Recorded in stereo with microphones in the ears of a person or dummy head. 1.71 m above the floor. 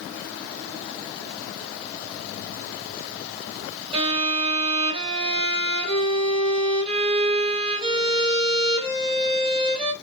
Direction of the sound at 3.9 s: 30° right (ahead or behind).